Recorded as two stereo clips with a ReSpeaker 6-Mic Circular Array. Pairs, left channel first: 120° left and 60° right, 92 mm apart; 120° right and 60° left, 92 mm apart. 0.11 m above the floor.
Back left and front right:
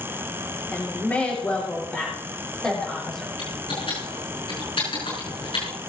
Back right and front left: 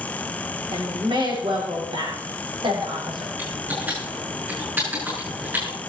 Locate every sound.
0.7 s a woman speaking: 50° left, 6 m; by 3.3 s 35° left, 6 m
3.4 s typing on a keyboard: 125° left, 6.5 m